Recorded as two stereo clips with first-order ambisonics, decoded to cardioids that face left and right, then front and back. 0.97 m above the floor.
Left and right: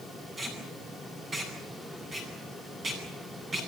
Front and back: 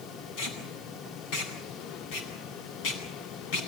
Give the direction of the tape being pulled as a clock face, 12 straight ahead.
1 o'clock.